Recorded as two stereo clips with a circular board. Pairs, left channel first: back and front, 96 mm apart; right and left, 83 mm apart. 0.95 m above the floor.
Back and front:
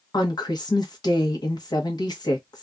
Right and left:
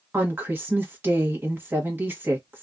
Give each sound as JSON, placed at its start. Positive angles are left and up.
{"t": 0.1, "sound": "a woman speaking", "azimuth_deg": 150, "distance_m": 1.2}